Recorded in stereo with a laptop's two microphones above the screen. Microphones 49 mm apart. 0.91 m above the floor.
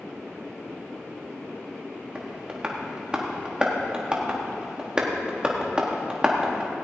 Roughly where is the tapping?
Centre.